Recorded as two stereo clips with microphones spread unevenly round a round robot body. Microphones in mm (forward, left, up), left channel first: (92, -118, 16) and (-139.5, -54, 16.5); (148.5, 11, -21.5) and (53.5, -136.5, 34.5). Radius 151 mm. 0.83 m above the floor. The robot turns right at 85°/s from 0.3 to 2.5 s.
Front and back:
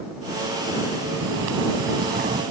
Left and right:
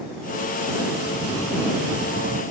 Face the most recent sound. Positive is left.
turn(degrees=-120)